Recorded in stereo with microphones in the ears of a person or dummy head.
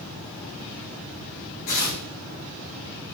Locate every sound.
1.7 s tearing paper: 50° left (ahead or behind), 3 m